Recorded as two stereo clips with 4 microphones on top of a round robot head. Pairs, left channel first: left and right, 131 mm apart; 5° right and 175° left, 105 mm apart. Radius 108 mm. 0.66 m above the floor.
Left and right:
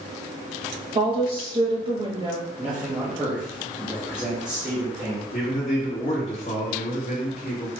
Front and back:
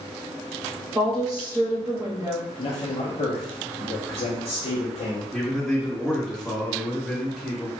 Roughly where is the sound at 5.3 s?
Left.